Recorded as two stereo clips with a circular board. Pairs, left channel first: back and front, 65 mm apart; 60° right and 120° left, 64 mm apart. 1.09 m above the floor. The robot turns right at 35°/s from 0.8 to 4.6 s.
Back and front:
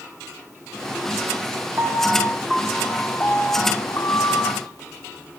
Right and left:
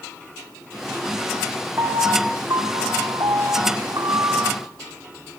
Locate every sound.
1.8 s a piano: 65° left, 2 m; by 4.6 s 160° left, 2 m